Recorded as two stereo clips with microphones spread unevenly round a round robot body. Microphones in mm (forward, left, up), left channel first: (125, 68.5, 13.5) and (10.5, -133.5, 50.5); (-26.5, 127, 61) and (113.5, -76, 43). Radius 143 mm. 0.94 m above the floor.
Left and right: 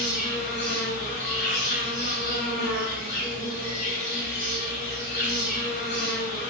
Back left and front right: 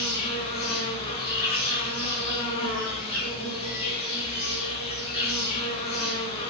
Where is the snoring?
No snoring in this recording.